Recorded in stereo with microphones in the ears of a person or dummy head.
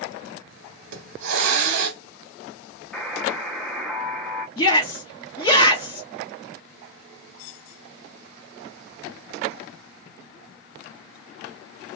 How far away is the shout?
About 1.1 m.